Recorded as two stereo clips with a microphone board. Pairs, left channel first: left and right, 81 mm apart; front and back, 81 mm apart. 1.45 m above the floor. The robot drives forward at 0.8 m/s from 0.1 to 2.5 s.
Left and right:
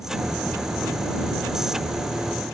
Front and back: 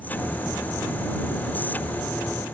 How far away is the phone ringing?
I don't hear a phone ringing.